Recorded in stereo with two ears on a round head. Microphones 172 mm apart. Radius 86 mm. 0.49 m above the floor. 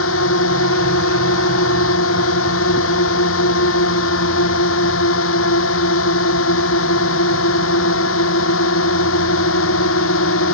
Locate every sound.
0.0 s a drone: 80° left